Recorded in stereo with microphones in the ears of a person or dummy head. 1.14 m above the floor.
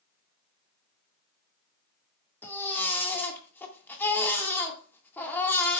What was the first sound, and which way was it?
A baby crying, 10° left (ahead or behind).